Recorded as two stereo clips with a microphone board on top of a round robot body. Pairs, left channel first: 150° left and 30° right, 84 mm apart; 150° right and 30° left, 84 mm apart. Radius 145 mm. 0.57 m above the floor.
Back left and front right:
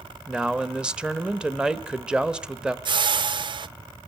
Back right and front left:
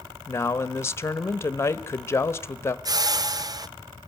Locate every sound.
0.3 s a man speaking: 105° right, 1.0 m
2.9 s a whoosh: 10° right, 0.6 m